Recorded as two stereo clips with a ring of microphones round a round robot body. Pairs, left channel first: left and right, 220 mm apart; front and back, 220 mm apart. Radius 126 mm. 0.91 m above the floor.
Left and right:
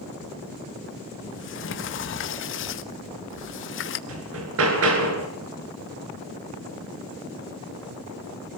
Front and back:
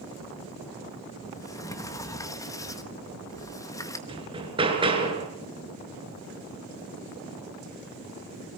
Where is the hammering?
110° right, 5.5 m.